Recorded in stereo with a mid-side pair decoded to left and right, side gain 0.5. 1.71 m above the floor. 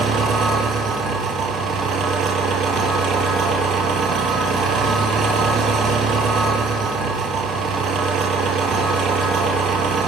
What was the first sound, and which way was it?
An engine running, 65° right.